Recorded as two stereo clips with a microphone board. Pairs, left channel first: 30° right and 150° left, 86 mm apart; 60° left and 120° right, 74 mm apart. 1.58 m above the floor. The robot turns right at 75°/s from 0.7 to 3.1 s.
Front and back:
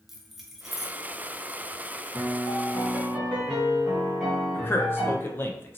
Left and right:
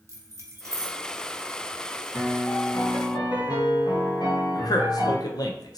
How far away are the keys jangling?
About 0.5 m.